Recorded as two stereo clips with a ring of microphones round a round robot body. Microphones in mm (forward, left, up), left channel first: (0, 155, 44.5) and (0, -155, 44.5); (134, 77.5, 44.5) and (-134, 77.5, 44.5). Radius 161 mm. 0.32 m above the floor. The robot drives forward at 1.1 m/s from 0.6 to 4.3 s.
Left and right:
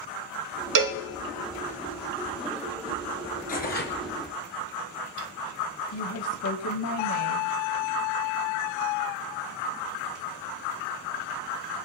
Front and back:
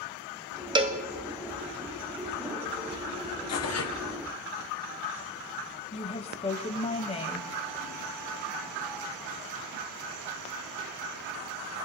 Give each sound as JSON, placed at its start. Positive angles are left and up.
{"t": 0.8, "sound": "a cowbell", "azimuth_deg": -105, "distance_m": 0.9}
{"t": 3.5, "sound": "tearing paper", "azimuth_deg": 25, "distance_m": 1.8}
{"t": 5.9, "sound": "a woman speaking", "azimuth_deg": 65, "distance_m": 2.0}